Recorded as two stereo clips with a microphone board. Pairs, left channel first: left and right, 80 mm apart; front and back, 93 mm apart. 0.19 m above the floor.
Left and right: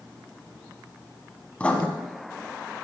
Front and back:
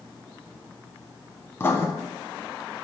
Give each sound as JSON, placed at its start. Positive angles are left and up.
{"t": 1.6, "sound": "writing", "azimuth_deg": 30, "distance_m": 0.9}